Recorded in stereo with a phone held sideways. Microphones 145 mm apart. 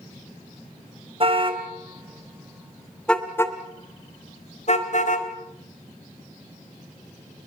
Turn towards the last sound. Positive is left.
turn(degrees=60)  # may be behind; listen again after turning